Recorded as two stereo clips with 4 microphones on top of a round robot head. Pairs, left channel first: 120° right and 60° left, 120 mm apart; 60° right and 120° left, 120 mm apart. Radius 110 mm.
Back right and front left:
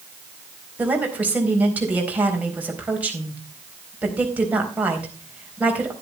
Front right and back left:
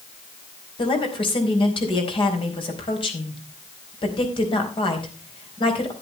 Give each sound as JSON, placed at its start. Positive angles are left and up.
{"t": 0.8, "sound": "a woman speaking", "azimuth_deg": -20, "distance_m": 4.0}